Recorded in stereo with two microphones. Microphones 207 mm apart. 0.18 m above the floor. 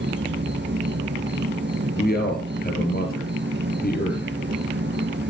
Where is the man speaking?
50° left (ahead or behind), 3 m.